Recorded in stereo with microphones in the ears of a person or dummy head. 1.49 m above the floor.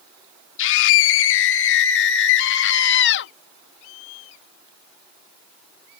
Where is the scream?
65° left (ahead or behind); by 3.3 s 55° left (ahead or behind).